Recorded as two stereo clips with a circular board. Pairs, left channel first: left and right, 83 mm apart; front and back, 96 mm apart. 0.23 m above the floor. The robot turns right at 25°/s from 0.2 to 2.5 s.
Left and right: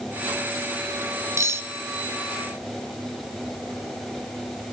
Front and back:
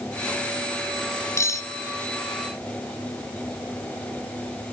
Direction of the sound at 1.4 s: 50° right.